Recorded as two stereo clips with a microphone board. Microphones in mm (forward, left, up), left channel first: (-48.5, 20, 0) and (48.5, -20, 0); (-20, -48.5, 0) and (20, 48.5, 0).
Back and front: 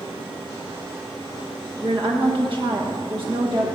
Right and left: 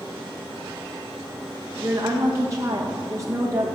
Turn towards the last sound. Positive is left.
turn(degrees=10)